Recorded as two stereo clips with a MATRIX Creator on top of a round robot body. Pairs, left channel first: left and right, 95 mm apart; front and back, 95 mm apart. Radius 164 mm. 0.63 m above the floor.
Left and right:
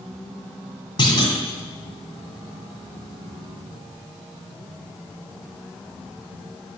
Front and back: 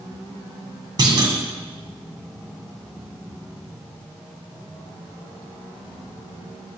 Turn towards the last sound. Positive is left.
turn(degrees=130)